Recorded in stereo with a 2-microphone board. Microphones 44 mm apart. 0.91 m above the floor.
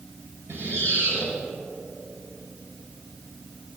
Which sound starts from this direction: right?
A squeak, at 0.5 s.